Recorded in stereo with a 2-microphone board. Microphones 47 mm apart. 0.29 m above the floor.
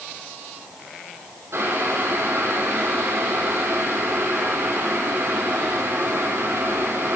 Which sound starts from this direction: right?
Boiling, at 1.5 s.